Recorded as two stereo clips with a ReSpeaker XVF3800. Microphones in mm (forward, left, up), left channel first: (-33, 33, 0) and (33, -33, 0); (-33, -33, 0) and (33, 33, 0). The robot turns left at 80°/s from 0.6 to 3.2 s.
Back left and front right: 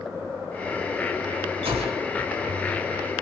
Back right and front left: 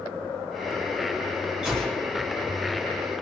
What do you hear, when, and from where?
1.6 s a gunshot: 35° right, 1.9 m; by 2.1 s 75° right, 1.9 m